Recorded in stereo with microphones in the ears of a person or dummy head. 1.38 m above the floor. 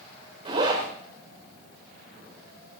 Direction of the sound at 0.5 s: 30° right (ahead or behind).